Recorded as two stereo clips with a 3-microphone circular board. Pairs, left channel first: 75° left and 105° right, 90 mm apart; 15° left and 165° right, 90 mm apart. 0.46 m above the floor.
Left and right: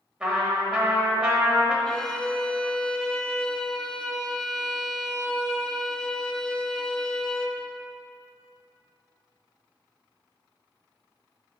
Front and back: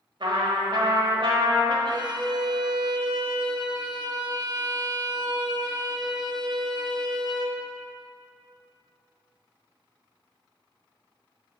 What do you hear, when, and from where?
0.2 s a trumpet: 175° left, 1.2 m
1.9 s a violin: 155° left, 0.6 m